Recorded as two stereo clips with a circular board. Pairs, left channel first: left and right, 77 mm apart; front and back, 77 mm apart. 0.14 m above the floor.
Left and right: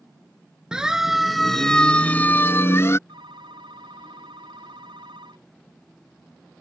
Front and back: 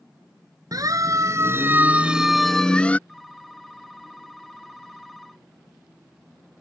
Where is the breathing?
No breathing in this recording.